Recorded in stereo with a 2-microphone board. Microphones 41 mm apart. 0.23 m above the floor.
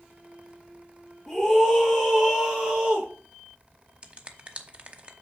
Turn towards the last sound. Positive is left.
turn(degrees=-35)  # may be behind; listen again after turning